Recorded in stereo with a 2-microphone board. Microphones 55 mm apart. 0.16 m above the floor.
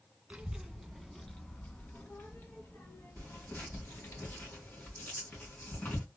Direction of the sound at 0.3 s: 20° right (ahead or behind).